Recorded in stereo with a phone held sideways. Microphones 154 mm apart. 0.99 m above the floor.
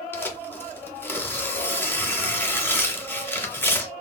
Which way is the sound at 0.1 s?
15° left (ahead or behind).